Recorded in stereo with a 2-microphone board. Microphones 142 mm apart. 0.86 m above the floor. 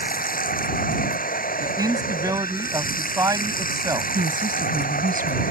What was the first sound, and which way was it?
Running water, 85° left.